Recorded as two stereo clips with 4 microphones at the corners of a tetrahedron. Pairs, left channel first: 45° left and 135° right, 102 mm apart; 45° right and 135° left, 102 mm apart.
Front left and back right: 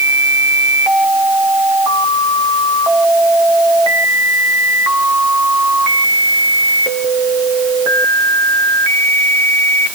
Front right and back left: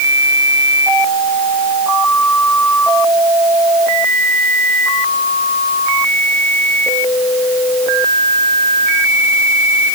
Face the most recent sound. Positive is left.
No sound to turn to.